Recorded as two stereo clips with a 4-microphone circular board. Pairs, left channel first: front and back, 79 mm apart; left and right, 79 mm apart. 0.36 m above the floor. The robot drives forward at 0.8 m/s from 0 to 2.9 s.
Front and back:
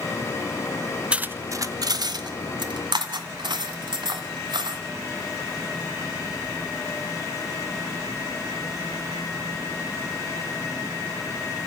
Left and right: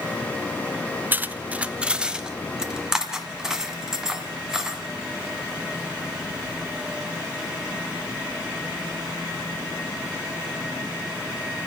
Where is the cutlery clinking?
120° right, 0.5 m; by 4.8 s 170° right, 1.6 m.